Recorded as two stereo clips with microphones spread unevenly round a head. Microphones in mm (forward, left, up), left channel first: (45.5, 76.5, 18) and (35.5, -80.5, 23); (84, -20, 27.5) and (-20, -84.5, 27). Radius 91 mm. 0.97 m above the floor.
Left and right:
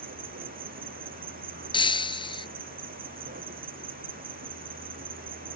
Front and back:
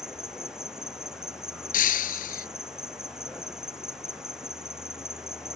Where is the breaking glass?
25° left.